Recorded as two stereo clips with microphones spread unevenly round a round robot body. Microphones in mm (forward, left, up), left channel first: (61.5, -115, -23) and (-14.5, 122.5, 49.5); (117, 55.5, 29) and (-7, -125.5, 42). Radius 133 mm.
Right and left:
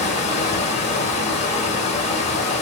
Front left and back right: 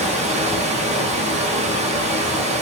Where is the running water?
75° right, 0.9 m.